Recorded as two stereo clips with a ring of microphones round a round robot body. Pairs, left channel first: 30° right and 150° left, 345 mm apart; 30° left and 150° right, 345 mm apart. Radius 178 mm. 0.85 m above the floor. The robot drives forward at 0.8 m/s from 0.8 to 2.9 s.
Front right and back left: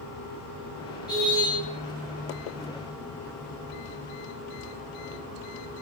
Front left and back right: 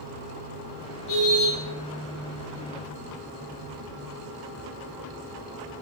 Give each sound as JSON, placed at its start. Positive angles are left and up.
{"t": 1.1, "sound": "a car horn", "azimuth_deg": 50, "distance_m": 8.5}